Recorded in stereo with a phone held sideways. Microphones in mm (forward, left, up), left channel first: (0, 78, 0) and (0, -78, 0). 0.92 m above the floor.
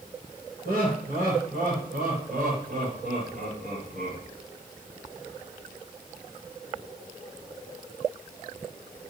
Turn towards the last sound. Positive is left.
turn(degrees=-50)  # may be behind; listen again after turning